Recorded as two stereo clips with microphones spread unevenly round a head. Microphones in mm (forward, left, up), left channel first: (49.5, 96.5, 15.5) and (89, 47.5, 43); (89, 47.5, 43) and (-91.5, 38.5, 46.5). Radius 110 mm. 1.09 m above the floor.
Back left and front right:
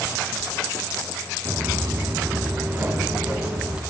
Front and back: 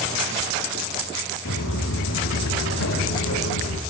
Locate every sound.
1.4 s footsteps: 10° right, 2.5 m; by 3.8 s 15° left, 4 m